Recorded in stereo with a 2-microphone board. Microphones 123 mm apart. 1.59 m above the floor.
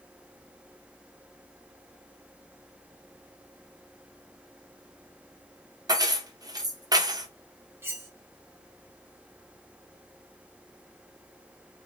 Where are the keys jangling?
30° right (ahead or behind), 0.6 m.